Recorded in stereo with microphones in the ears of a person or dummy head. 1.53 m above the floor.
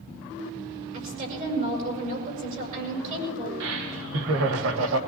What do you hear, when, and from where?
0.9 s a woman speaking: 50° right (ahead or behind), 8 m
3.6 s laughter: 80° right, 1.7 m